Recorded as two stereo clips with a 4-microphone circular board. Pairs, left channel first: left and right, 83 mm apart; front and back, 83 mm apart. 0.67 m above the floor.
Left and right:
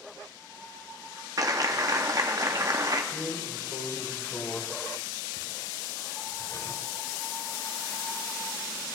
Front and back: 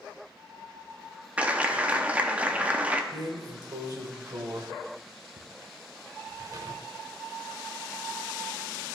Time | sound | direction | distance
1.4 | a clap | 115° right | 0.6 m
3.1 | a drawer | 140° left | 0.9 m